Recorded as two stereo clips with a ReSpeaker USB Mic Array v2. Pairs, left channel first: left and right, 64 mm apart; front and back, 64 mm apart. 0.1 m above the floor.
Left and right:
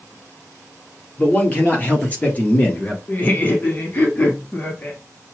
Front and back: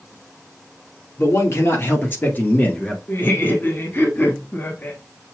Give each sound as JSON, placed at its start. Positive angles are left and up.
{"t": 1.2, "sound": "a man speaking", "azimuth_deg": 30, "distance_m": 2.0}
{"t": 3.1, "sound": "laughter", "azimuth_deg": 45, "distance_m": 1.5}